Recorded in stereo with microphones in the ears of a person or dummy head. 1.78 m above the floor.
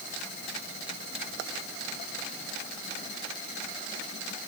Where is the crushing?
I don't hear crushing.